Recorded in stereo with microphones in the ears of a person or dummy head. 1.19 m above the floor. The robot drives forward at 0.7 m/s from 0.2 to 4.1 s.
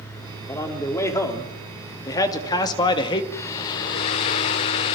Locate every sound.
0.4 s a man speaking: 15° left (ahead or behind), 4 m; by 3.2 s 30° left (ahead or behind), 2.5 m
3.3 s a hair dryer: 15° left (ahead or behind), 1.0 m; by 5.0 s 20° left (ahead or behind), 0.9 m